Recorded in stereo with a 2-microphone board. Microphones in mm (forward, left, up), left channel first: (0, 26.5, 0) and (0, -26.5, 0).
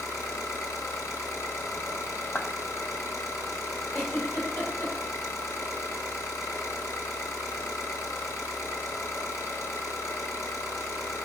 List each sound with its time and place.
0.0 s an engine running: 80° left, 1.4 m
2.4 s a clap: 45° left (ahead or behind), 0.8 m
3.9 s a giggle: 55° left (ahead or behind), 3 m